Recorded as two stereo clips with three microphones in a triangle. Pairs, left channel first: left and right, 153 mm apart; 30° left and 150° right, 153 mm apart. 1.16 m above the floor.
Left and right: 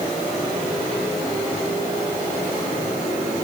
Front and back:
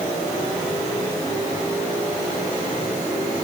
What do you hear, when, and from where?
Only background noise.